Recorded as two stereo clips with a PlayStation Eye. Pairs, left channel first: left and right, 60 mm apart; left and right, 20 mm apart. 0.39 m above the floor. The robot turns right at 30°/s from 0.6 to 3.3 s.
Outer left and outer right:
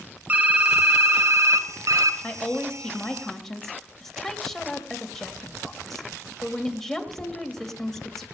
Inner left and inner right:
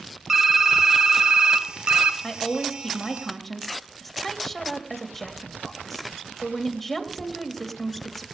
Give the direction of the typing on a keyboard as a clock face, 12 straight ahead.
5 o'clock.